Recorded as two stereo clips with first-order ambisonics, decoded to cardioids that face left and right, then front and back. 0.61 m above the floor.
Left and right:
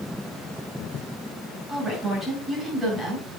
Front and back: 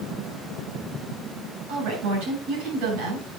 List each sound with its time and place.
1.7 s a woman speaking: 160° right, 7.5 m